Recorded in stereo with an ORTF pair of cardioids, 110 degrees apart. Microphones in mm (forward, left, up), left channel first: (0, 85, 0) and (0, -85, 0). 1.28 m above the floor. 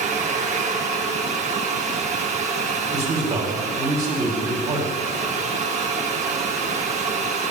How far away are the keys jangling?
No keys jangling in this recording.